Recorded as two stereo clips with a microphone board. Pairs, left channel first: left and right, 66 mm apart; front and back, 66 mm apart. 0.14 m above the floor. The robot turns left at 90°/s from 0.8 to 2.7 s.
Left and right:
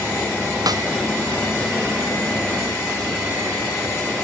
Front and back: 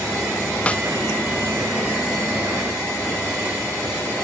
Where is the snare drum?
70° right; by 0.8 s 75° right.